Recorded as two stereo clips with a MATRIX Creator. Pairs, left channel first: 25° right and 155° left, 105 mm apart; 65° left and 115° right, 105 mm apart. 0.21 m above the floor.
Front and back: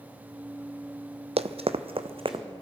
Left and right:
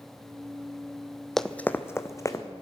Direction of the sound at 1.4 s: 155° left.